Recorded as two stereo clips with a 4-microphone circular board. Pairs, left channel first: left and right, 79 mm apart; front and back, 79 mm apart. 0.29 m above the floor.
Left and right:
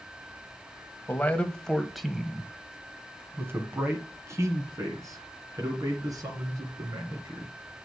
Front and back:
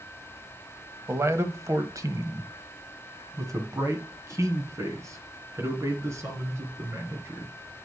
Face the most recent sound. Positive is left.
turn(degrees=-125)